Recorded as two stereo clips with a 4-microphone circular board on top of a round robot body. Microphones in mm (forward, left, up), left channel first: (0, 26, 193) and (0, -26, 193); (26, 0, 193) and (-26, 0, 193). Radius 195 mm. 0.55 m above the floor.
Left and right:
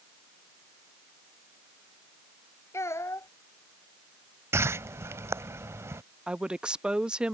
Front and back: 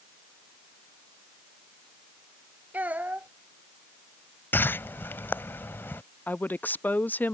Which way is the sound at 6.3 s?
30° right.